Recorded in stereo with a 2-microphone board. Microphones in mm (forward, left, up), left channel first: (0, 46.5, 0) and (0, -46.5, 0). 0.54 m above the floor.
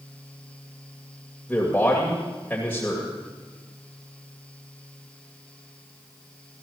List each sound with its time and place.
1.5 s a man speaking: 15° left (ahead or behind), 2.5 m